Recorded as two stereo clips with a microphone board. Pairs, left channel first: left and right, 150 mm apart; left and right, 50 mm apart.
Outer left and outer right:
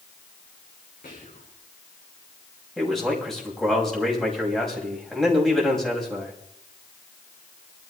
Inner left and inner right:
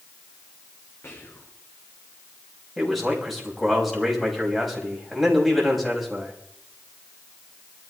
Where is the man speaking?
Centre (ahead or behind), 5.5 m.